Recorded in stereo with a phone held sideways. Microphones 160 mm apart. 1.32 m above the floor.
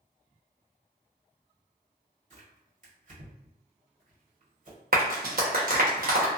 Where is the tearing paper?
50° right (ahead or behind), 1.6 m.